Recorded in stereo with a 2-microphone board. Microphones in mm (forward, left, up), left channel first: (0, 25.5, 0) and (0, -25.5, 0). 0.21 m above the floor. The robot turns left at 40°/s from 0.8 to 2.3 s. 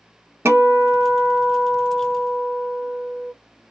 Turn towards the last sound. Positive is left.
turn(degrees=-125)